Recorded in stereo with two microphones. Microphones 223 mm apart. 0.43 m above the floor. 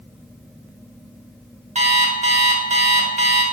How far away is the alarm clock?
About 0.6 m.